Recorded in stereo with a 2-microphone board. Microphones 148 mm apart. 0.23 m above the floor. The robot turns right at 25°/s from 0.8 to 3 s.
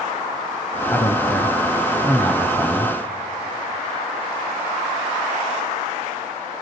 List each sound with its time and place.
0.9 s a man speaking: 15° left (ahead or behind), 1.1 m; by 2.9 s centre (ahead or behind), 1.1 m